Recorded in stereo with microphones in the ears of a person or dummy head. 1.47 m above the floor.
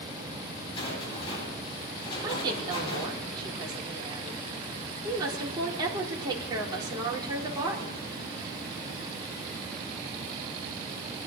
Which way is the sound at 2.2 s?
25° right (ahead or behind).